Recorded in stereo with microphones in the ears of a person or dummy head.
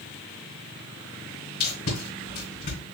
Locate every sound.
1.6 s tape being pulled: 45° left (ahead or behind), 3 m